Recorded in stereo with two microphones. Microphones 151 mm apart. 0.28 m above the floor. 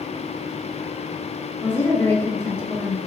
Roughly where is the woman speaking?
Centre.